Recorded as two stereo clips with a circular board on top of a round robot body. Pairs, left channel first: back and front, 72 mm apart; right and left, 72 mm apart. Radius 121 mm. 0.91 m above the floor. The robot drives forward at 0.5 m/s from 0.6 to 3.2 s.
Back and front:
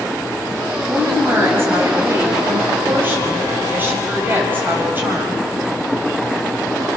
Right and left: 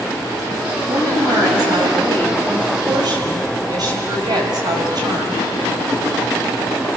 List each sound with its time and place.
0.9 s a woman speaking: 55° left, 7 m; by 5.4 s 65° left, 6 m